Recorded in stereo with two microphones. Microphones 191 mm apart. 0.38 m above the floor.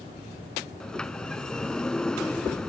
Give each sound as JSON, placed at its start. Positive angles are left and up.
{"t": 0.8, "sound": "a sliding door", "side_deg": 5}